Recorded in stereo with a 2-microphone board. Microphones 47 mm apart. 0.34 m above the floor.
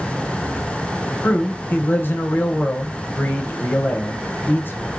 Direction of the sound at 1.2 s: 50° left (ahead or behind).